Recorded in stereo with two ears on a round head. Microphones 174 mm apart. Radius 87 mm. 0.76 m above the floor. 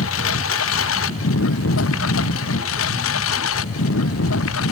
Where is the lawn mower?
85° left.